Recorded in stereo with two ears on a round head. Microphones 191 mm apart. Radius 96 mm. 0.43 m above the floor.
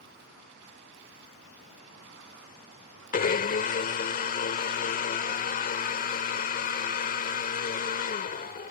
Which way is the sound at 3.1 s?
40° left (ahead or behind).